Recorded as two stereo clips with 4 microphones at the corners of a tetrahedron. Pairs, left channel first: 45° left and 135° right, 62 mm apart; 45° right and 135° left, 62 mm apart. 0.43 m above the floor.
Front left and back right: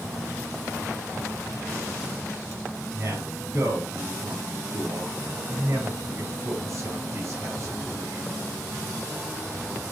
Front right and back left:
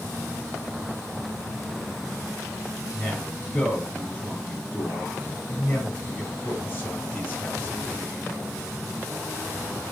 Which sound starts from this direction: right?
A man speaking, at 2.9 s.